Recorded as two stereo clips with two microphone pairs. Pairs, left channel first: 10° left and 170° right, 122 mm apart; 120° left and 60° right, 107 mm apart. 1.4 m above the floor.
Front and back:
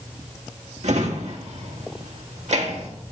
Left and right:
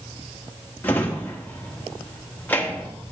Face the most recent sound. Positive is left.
turn(degrees=-170)